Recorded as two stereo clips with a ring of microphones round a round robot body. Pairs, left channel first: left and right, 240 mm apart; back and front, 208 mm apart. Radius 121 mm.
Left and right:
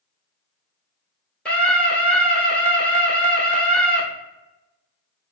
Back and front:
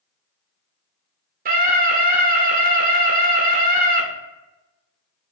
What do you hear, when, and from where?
1.4 s a scream: 5° left, 0.9 m